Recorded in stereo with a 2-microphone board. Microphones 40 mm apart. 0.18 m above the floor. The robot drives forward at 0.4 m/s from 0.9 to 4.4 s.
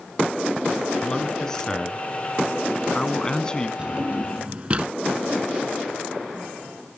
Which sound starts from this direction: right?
A drawer, at 3.8 s.